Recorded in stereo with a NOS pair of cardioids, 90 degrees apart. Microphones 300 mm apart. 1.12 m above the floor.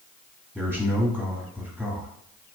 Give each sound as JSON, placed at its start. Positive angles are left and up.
{"t": 0.6, "sound": "a man speaking", "azimuth_deg": -10, "distance_m": 1.5}